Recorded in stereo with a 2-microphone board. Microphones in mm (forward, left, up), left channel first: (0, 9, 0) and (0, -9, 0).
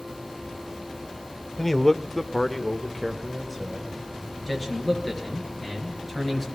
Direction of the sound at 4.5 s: Centre (ahead or behind).